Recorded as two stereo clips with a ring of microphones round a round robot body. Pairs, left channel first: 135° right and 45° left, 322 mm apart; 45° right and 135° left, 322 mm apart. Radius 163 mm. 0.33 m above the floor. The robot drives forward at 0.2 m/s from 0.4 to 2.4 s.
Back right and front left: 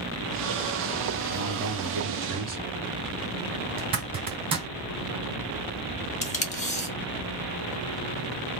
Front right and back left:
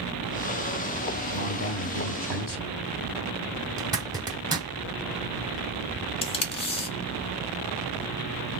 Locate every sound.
1.3 s a man speaking: 15° right, 1.0 m; by 2.8 s 25° right, 0.9 m
3.8 s a zipper: 80° left, 1.0 m
6.2 s tape being pulled: 95° right, 0.6 m